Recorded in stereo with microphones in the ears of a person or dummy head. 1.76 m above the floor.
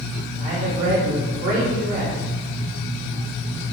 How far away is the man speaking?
About 1.8 m.